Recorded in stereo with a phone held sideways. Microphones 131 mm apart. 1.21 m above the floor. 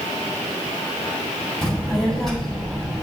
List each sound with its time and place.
1.6 s a child speaking: centre (ahead or behind), 4.5 m